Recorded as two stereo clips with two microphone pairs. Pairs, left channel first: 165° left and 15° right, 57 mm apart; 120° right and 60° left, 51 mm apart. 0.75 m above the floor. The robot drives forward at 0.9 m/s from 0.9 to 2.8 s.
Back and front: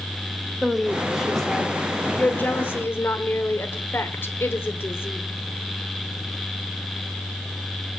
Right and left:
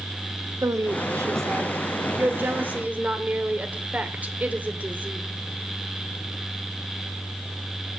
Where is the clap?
I don't hear a clap.